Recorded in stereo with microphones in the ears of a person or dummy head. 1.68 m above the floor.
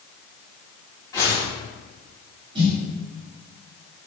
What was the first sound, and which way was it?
A whoosh, 15° left (ahead or behind).